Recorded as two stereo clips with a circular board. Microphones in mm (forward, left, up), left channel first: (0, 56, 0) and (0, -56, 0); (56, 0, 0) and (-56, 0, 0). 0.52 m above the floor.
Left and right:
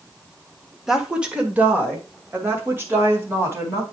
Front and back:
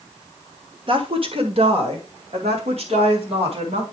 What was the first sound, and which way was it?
A woman speaking, 175° right.